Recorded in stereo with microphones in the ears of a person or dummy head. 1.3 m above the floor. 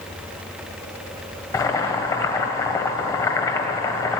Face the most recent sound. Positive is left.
turn(degrees=20)  # may be behind; listen again after turning